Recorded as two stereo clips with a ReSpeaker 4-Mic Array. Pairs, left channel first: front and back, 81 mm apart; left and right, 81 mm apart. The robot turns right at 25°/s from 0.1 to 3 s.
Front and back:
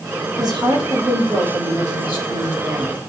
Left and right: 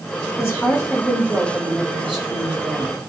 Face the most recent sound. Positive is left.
turn(degrees=-150)